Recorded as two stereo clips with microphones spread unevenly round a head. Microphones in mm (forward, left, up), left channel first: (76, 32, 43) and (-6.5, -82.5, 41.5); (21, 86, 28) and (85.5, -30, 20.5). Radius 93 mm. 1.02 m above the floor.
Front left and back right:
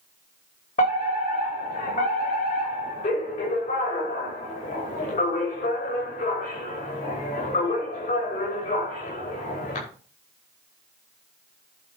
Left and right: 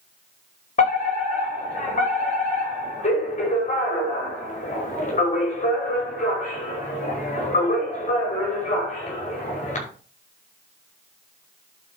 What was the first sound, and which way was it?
A fire alarm, 95° left.